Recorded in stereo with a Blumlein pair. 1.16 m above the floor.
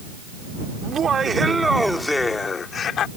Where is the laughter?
25° right; by 3.1 s 30° left.